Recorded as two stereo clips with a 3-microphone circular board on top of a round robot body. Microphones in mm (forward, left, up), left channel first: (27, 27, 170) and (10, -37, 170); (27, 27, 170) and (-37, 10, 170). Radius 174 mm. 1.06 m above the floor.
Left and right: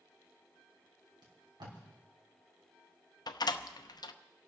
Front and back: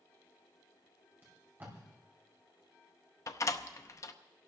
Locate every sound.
1.2 s tape being pulled: 100° right, 3 m
3.3 s a door slam: 55° left, 0.7 m